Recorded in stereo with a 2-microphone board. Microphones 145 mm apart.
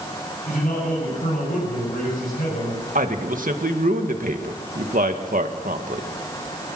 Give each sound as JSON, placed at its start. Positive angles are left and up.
{"t": 0.5, "sound": "a man speaking", "side_deg": 75, "distance_m": 9.0}
{"t": 3.0, "sound": "a man speaking", "side_deg": -70, "distance_m": 1.8}